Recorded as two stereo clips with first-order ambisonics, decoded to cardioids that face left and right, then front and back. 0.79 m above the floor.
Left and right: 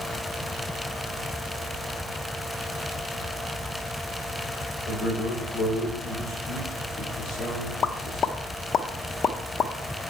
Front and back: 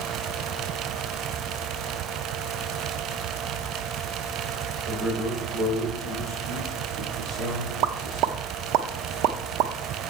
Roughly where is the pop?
Behind left.